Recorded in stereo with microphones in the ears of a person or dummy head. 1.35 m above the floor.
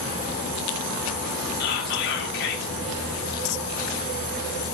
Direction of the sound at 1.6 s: 55° left (ahead or behind).